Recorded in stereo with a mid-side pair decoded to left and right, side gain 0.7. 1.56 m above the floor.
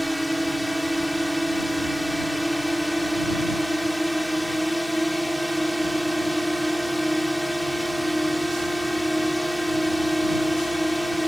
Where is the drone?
Straight ahead.